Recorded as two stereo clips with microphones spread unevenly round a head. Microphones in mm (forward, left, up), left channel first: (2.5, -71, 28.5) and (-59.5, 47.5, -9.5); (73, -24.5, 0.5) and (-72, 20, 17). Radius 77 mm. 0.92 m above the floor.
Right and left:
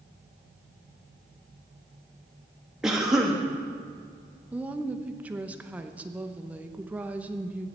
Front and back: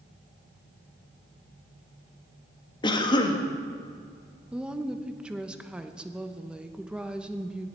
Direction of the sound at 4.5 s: 75° left.